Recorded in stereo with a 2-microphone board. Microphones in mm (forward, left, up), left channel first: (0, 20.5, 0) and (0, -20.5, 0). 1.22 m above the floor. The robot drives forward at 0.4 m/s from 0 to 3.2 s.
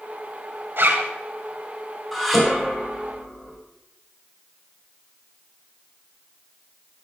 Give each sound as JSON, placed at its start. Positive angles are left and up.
{"t": 0.8, "sound": "a zipper", "side_deg": -55, "distance_m": 2.5}
{"t": 2.1, "sound": "dishes clattering", "side_deg": 5, "distance_m": 4.0}